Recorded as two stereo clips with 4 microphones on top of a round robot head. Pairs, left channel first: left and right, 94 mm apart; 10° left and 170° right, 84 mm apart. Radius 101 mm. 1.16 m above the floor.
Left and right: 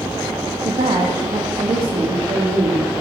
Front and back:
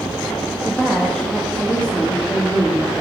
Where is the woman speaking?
75° right, 1.7 m; by 2.9 s 60° right, 3 m.